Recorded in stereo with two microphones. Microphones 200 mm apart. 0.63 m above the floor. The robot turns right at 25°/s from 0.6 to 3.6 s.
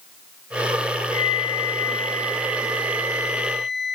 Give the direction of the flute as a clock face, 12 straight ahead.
5 o'clock.